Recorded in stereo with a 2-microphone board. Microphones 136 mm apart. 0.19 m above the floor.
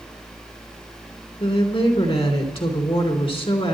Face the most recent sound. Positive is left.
turn(degrees=45)  # may be behind; listen again after turning